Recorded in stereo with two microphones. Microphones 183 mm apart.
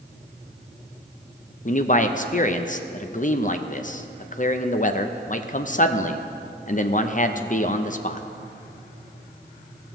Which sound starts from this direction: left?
A man speaking, at 1.6 s.